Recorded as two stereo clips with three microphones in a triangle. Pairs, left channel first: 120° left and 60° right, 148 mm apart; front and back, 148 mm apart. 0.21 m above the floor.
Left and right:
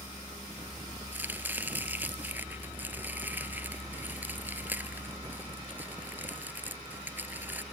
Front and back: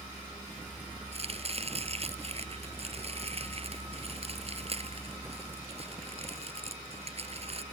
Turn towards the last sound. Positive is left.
turn(degrees=-135)